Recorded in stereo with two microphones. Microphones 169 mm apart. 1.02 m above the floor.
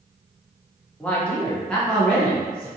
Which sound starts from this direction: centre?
A man speaking, at 1.0 s.